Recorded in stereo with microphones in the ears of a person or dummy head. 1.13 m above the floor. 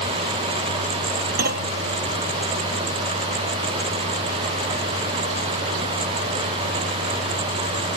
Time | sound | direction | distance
1.4 | a clunk | 55° right (ahead or behind) | ?